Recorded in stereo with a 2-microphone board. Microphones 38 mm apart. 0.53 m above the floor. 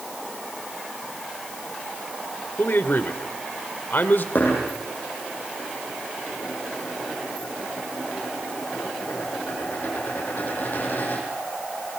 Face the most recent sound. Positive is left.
turn(degrees=50)  # may be behind; listen again after turning